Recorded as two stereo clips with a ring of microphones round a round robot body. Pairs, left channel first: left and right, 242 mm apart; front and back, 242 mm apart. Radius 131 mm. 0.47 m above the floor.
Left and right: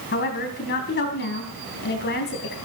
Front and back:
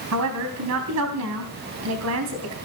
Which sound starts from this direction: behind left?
A woman speaking, at 0.1 s.